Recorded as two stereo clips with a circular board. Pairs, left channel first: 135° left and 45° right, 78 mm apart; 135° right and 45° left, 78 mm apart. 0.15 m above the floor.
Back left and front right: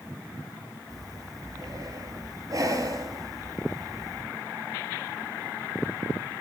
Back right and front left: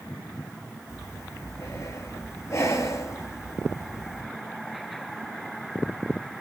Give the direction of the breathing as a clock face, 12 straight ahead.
3 o'clock.